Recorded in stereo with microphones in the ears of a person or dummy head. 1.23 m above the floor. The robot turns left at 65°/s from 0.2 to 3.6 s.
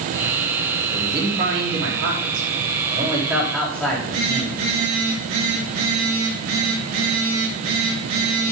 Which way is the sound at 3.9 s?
70° right (ahead or behind).